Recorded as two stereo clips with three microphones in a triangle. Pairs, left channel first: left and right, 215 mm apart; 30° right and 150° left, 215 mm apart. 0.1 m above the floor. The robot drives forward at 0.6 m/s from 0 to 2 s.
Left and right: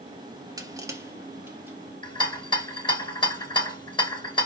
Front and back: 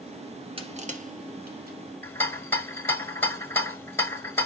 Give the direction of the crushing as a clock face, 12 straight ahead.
5 o'clock.